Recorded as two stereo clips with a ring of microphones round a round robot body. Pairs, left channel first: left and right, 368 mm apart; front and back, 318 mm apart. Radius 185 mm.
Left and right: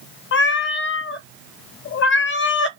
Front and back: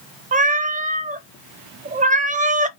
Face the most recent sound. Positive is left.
turn(degrees=130)